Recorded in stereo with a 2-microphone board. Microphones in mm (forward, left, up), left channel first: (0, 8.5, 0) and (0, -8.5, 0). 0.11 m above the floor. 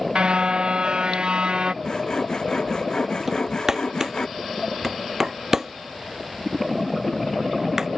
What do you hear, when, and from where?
0.1 s a car horn: 65° right (ahead or behind); by 1.7 s 60° right (ahead or behind)
1.8 s sawing: 45° left (ahead or behind)
3.3 s hammering: 30° right (ahead or behind)